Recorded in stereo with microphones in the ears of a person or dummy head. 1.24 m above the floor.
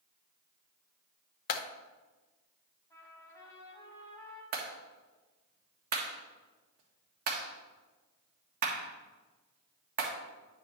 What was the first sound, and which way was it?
A clap, 50° left (ahead or behind).